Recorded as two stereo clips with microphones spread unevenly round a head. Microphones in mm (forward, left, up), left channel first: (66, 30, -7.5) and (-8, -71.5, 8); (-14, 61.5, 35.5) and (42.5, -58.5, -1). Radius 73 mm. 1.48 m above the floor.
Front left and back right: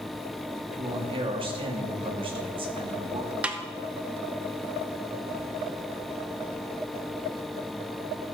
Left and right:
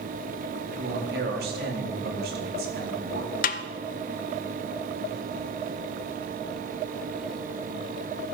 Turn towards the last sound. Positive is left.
turn(degrees=150)